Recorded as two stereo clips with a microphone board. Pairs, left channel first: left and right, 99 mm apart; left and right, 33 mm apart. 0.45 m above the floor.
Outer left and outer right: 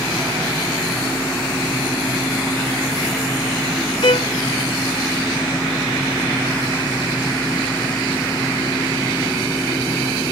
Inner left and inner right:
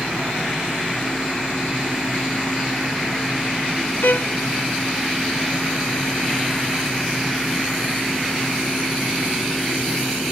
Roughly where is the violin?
Left.